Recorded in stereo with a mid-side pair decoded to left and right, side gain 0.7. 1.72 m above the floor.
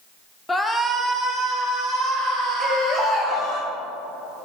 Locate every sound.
0.5 s a shout: 15° left, 0.7 m; by 3.6 s 10° right, 4.5 m
2.6 s a baby crying: 25° left, 1.6 m